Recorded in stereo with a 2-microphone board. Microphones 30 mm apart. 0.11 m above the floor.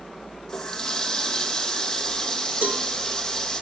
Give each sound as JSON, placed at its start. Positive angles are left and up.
{"t": 0.5, "sound": "a running tap", "side_deg": 20, "distance_m": 2.5}
{"t": 2.6, "sound": "a cowbell", "side_deg": -80, "distance_m": 6.0}